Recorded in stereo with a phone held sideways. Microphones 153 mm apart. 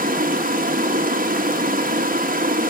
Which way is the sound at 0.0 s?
65° right (ahead or behind).